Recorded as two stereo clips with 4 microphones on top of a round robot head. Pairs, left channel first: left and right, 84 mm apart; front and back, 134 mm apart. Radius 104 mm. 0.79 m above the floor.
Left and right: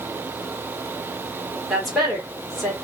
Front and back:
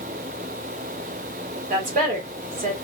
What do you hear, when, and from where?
1.7 s a woman speaking: straight behind, 2 m